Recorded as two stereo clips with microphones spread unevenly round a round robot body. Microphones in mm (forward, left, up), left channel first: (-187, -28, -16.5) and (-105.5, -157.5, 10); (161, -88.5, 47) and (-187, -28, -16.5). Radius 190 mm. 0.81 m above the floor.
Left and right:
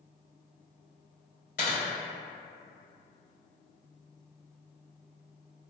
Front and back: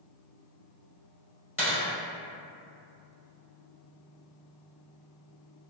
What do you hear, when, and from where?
1.6 s a dropped coin: 65° left, 2.0 m